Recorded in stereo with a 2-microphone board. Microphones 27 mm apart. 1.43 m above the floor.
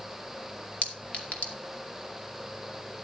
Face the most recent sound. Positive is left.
turn(degrees=60)  # may be behind; listen again after turning